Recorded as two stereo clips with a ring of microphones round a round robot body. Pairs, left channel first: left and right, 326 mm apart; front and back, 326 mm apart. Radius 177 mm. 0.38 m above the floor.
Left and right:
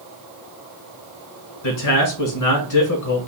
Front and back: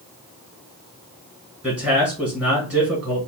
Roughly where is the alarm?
No alarm in this recording.